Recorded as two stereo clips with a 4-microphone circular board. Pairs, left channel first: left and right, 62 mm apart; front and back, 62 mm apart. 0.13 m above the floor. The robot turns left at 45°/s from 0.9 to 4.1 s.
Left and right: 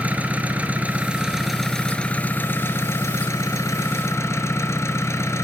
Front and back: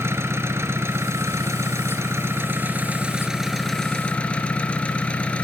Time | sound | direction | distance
0.0 | an engine running | 150° right | 1.3 m